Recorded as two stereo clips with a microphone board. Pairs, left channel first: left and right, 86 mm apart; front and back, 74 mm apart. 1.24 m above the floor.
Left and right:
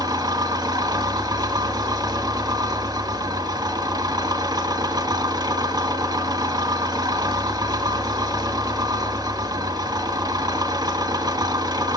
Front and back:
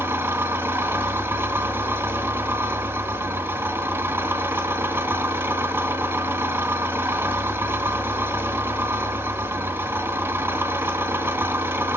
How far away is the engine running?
About 2.5 m.